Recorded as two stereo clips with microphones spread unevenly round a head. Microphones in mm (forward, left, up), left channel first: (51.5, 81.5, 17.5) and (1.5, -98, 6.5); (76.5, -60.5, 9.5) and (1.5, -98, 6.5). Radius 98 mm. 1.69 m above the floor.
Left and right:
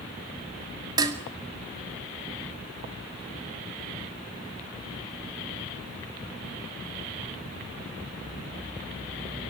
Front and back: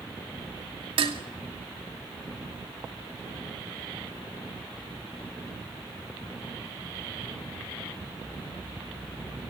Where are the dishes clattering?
175° right, 2.5 m.